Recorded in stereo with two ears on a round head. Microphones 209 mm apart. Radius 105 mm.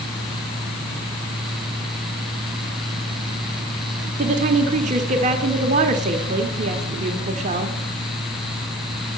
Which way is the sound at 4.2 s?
30° right (ahead or behind).